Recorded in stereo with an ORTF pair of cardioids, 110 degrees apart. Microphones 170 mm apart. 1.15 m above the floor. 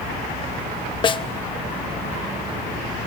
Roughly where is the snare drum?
Ahead left.